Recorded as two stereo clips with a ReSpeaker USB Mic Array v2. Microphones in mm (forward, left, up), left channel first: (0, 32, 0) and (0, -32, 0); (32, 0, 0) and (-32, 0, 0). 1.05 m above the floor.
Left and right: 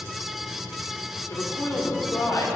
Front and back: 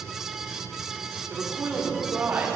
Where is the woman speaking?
120° left, 3 m.